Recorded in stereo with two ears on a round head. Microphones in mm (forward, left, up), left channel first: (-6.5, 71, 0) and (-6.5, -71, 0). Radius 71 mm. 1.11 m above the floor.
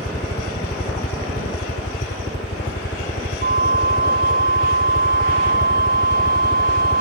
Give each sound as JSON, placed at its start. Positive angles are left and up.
{"t": 0.0, "sound": "a helicopter", "side_deg": 50}
{"t": 3.4, "sound": "a flute", "side_deg": -65}